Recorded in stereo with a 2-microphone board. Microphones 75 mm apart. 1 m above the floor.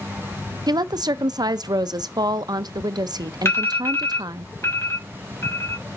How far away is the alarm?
About 3.5 m.